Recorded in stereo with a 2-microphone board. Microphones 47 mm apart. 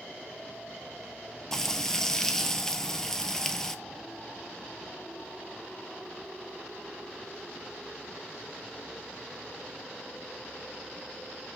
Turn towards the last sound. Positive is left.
turn(degrees=15)  # may be behind; listen again after turning